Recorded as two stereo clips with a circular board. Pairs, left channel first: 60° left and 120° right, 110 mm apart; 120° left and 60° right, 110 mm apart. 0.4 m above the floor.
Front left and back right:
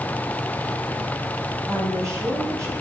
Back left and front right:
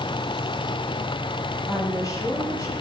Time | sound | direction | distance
1.7 | a woman speaking | straight behind | 8 m